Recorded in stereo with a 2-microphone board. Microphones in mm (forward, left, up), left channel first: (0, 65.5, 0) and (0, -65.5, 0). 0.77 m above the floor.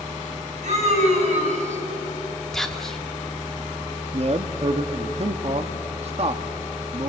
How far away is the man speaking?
About 1.0 m.